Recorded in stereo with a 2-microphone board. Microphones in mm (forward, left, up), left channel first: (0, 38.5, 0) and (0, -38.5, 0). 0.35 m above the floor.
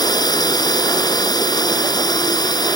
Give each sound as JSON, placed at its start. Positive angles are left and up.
{"t": 0.0, "sound": "a drone", "side_deg": 60}